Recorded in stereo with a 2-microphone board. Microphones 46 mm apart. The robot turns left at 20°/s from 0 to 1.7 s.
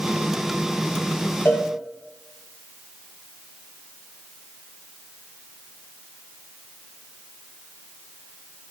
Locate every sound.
1.4 s a cowbell: 55° left (ahead or behind), 0.6 m; by 1.7 s 60° left (ahead or behind), 0.6 m